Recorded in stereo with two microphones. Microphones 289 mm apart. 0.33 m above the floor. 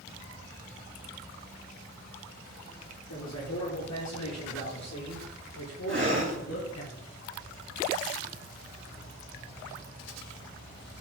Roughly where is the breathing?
Right.